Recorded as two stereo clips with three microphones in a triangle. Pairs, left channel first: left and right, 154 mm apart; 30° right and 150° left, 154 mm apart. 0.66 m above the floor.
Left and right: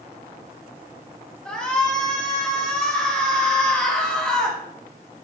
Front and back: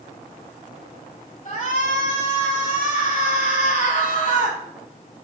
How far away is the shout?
About 5.5 m.